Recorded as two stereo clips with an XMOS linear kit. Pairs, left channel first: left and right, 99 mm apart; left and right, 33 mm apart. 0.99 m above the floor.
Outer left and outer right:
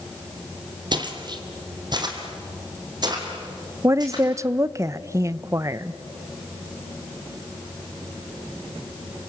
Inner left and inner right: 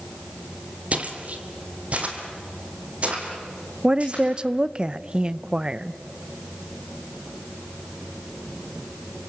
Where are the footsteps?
45° right (ahead or behind), 2 m; by 4.2 s 40° right (ahead or behind), 5 m.